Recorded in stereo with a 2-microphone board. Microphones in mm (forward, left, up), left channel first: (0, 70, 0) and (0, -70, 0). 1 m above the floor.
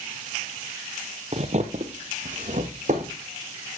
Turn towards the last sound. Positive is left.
turn(degrees=-55)  # may be behind; listen again after turning